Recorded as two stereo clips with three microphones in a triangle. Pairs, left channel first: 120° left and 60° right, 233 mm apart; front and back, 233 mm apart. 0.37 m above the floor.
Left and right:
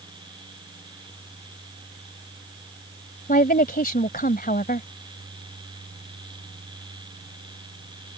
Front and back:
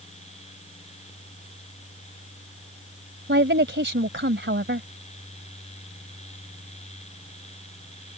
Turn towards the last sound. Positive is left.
turn(degrees=160)